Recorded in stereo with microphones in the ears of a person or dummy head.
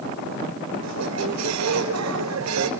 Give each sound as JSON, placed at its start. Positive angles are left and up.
{"t": 0.8, "sound": "a squeak", "side_deg": -75, "distance_m": 4.0}